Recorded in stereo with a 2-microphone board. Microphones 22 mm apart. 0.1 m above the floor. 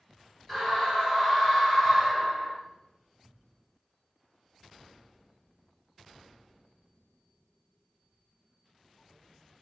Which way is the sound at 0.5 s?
15° left (ahead or behind).